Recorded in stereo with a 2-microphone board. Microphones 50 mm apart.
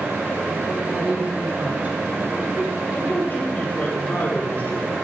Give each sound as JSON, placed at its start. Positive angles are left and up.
{"t": 0.7, "sound": "a woman speaking", "side_deg": -25, "distance_m": 5.5}
{"t": 2.9, "sound": "a man speaking", "side_deg": 35, "distance_m": 4.0}